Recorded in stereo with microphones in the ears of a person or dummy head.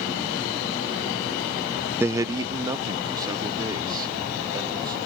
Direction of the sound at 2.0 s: 10° right (ahead or behind).